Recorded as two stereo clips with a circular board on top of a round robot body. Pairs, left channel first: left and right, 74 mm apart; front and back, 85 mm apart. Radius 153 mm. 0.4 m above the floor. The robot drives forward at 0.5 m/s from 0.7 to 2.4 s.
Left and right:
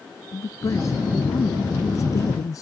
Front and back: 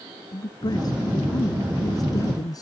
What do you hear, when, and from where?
0.3 s a man speaking: 40° left; by 2.6 s 45° left